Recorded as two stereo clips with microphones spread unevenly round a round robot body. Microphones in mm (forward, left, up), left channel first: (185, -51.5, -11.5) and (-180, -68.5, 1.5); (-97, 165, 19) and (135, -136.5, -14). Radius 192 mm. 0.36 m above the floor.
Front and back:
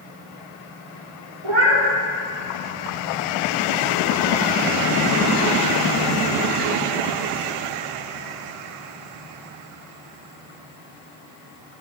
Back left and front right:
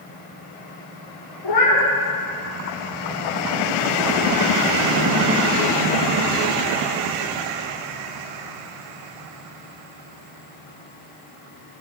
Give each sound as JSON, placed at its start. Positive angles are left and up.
{"t": 1.4, "sound": "a cat meowing", "azimuth_deg": 160, "distance_m": 4.0}